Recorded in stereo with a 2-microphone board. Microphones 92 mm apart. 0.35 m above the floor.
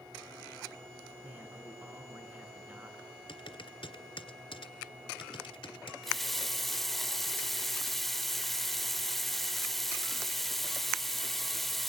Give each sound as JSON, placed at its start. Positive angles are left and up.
{"t": 1.2, "sound": "a man speaking", "side_deg": -20, "distance_m": 5.5}
{"t": 3.3, "sound": "typing on a keyboard", "side_deg": 75, "distance_m": 1.5}
{"t": 6.0, "sound": "a running tap", "side_deg": 5, "distance_m": 0.5}